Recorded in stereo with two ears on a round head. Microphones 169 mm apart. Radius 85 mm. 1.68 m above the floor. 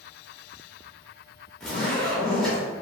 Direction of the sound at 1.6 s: 5° left (ahead or behind).